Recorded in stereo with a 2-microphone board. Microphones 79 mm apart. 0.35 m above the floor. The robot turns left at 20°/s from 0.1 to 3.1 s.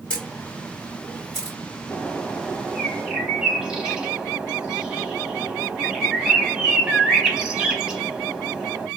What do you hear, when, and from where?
0.1 s a camera shutter: 15° left (ahead or behind), 2.5 m; by 1.6 s 10° right (ahead or behind), 2.5 m
1.9 s a bird: 10° left (ahead or behind), 0.9 m; by 8.9 s 10° right (ahead or behind), 0.9 m